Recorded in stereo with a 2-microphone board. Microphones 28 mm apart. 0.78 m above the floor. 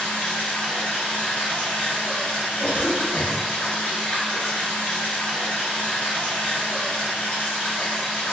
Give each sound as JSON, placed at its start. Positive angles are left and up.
{"t": 0.0, "sound": "running water", "side_deg": 60, "distance_m": 1.6}
{"t": 2.6, "sound": "a cough", "side_deg": -20, "distance_m": 1.2}